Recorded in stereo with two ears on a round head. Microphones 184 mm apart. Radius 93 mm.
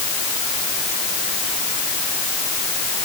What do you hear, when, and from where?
Only background noise.